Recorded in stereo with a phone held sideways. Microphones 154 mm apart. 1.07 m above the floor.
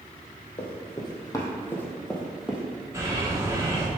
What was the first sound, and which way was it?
Running footsteps, 35° left (ahead or behind).